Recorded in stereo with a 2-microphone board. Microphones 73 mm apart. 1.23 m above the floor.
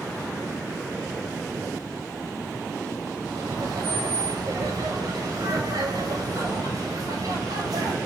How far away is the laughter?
About 7 m.